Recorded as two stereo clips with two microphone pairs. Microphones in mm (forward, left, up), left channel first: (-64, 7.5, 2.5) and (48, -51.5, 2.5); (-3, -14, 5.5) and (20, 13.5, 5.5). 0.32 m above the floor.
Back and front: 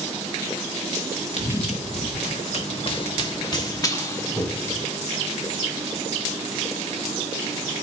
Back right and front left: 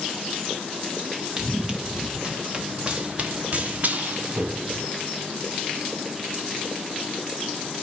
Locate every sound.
1.4 s running footsteps: 125° left, 2.5 m; by 4.8 s 80° left, 2.5 m